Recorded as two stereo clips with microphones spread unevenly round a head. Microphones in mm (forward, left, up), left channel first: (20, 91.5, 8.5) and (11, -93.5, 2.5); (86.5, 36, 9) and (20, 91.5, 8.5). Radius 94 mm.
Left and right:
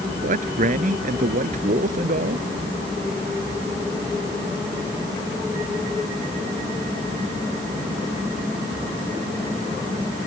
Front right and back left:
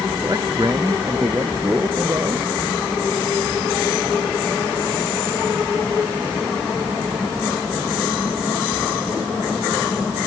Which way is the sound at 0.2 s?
145° right.